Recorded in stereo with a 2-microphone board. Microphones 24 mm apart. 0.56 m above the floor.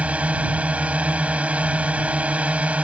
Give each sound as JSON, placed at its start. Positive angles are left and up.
{"t": 0.0, "sound": "a drone", "side_deg": -65}